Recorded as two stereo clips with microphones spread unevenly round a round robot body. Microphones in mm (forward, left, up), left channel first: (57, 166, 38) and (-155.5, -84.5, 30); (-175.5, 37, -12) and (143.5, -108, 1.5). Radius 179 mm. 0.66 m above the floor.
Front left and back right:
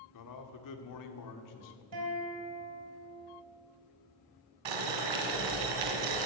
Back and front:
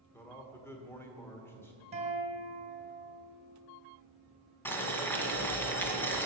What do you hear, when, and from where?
0.1 s a man speaking: 70° left, 1.6 m
1.9 s a guitar: 95° right, 3.5 m
4.7 s boiling: 120° right, 1.9 m